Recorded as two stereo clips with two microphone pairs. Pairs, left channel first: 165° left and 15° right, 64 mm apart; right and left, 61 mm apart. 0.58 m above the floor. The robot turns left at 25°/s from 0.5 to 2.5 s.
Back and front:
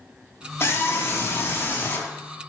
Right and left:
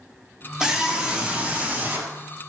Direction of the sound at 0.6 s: 170° left.